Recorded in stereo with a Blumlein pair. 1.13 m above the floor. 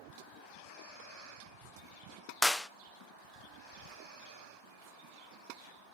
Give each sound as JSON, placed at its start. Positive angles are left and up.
{"t": 2.4, "sound": "a clap", "azimuth_deg": 5, "distance_m": 0.6}